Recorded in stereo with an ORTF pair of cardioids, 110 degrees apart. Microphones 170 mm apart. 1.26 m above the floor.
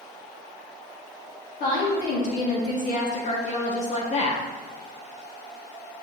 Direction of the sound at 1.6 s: 50° left.